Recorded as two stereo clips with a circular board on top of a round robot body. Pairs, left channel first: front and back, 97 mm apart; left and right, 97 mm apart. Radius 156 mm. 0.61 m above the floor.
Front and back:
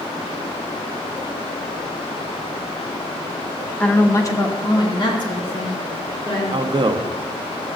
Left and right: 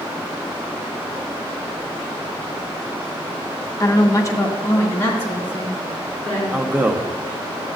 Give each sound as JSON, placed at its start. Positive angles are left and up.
{"t": 3.8, "sound": "a woman speaking", "azimuth_deg": 70, "distance_m": 1.1}
{"t": 6.5, "sound": "a man speaking", "azimuth_deg": -160, "distance_m": 0.9}